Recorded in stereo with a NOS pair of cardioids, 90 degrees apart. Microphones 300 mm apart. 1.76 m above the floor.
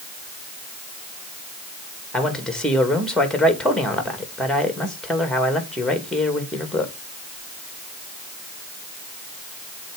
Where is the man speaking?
Straight ahead, 2.5 m.